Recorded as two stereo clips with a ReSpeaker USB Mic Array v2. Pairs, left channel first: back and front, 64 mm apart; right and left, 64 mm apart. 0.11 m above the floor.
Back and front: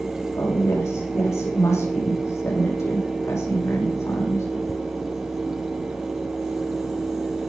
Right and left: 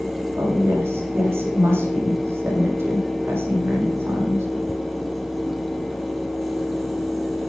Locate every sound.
0.4 s a woman speaking: 140° left, 7 m